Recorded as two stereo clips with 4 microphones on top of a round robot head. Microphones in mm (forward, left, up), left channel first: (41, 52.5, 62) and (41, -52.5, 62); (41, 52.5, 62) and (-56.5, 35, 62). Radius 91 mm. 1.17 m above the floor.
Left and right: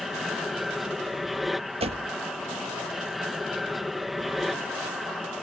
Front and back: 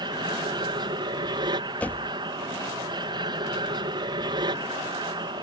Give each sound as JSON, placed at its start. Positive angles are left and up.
{"t": 0.0, "sound": "an aircraft", "azimuth_deg": 180}
{"t": 1.8, "sound": "a door slam", "azimuth_deg": -70}